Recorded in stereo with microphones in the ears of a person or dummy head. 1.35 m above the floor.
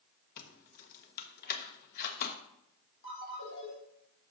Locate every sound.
0.4 s keys jangling: 55° left (ahead or behind), 1.1 m
3.0 s a ringtone: 60° left (ahead or behind), 3 m